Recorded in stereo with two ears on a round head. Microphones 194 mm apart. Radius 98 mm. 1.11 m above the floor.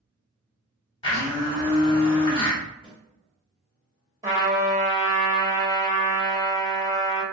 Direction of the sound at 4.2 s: 15° right (ahead or behind).